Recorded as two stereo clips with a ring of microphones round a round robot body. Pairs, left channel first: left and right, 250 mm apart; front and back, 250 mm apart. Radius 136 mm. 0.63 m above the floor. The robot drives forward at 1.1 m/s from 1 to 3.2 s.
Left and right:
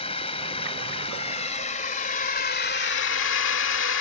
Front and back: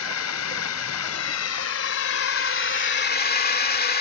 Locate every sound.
0.0 s a drone: 20° left; by 4.0 s 50° left